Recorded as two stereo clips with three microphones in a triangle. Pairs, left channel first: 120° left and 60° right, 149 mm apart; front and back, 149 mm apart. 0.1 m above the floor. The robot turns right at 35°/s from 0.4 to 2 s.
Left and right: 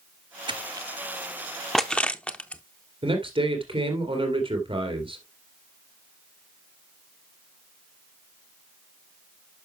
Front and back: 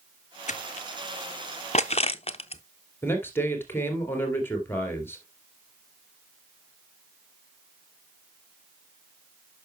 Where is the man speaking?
65° right, 2 m.